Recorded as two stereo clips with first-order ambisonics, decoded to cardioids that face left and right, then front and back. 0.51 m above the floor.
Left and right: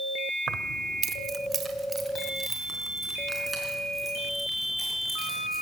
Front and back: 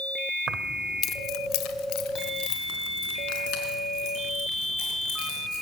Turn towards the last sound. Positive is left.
turn(degrees=-5)